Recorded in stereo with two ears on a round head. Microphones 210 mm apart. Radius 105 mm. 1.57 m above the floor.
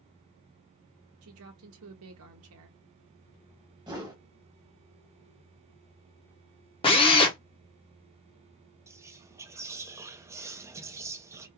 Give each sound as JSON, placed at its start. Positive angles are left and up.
{"t": 1.2, "sound": "a woman speaking", "side_deg": -60, "distance_m": 0.8}
{"t": 3.9, "sound": "a whoosh", "side_deg": -15, "distance_m": 1.1}
{"t": 6.8, "sound": "a drill", "side_deg": 20, "distance_m": 0.8}
{"t": 8.9, "sound": "whispering", "side_deg": -10, "distance_m": 0.6}